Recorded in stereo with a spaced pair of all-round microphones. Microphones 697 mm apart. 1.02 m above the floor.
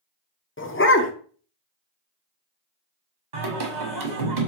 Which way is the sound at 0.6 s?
20° left (ahead or behind).